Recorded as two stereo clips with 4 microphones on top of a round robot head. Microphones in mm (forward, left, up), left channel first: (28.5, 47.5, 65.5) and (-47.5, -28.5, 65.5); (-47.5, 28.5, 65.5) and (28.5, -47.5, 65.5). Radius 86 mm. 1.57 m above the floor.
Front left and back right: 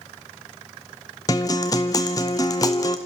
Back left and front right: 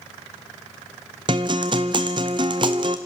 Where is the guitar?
5° right, 0.8 m.